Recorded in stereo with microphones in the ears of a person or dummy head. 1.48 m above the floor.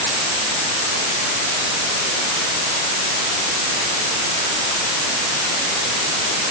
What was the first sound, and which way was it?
Only background noise.